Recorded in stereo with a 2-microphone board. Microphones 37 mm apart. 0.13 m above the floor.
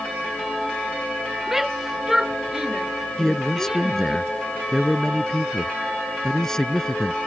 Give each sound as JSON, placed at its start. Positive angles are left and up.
{"t": 1.5, "sound": "a shout", "side_deg": -10}
{"t": 3.2, "sound": "a man speaking", "side_deg": 15}